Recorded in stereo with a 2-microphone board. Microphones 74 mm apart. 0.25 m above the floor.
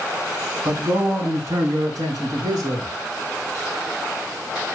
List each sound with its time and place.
0.7 s a man speaking: 50° right (ahead or behind), 3 m; by 2.9 s 70° right (ahead or behind), 4.5 m